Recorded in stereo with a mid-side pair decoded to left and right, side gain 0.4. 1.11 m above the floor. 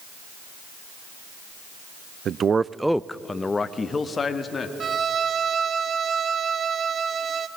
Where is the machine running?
I don't hear a machine running.